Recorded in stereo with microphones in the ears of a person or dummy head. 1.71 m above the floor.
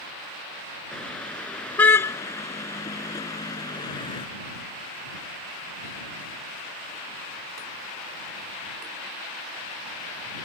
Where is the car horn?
5° left (ahead or behind); by 4.3 s 25° left (ahead or behind).